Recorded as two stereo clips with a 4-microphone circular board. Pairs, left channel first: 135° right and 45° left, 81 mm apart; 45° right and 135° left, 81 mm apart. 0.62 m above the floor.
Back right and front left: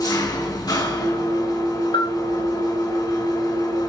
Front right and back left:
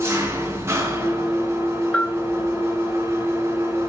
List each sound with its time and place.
0.0 s an engine running: 170° right, 3 m
1.9 s a bell: 125° right, 1.9 m